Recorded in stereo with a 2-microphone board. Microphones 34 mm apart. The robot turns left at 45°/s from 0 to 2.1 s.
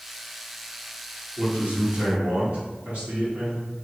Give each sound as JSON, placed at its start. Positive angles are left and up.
{"t": 1.4, "sound": "a man speaking", "azimuth_deg": -80, "distance_m": 1.9}